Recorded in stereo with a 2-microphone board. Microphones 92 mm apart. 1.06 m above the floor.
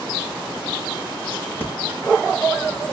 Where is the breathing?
25° left (ahead or behind), 4 m.